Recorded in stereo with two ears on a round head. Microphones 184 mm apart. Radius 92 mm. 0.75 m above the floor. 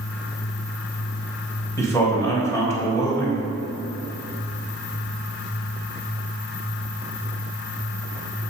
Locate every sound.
1.8 s a man speaking: 15° left (ahead or behind), 3 m